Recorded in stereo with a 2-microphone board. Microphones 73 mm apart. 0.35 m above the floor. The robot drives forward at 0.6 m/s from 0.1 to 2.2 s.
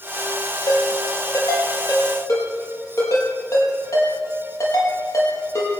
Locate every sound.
0.7 s a ringtone: 50° left (ahead or behind), 5 m; by 5.7 s 45° left (ahead or behind), 5.5 m